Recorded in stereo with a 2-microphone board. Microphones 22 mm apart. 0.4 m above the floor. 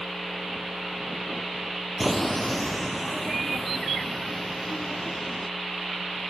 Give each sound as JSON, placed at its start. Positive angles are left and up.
{"t": 2.0, "sound": "footsteps", "side_deg": 0}